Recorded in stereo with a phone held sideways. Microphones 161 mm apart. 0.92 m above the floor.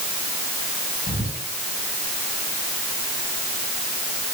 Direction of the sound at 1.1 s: 40° right (ahead or behind).